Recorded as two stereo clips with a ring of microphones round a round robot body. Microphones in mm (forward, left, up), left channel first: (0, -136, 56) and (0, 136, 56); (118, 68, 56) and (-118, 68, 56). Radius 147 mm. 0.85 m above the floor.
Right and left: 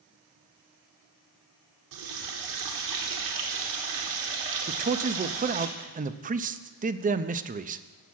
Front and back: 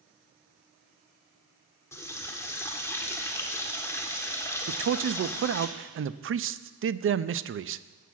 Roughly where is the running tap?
Left.